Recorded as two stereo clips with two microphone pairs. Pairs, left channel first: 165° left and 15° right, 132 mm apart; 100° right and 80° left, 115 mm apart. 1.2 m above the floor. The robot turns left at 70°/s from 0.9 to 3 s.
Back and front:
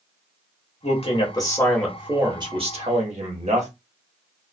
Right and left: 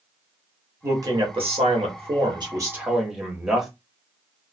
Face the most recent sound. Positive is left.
turn(degrees=-5)